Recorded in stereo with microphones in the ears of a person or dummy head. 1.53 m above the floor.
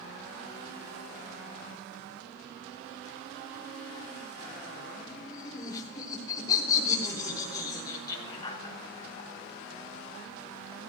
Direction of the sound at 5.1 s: 25° left (ahead or behind).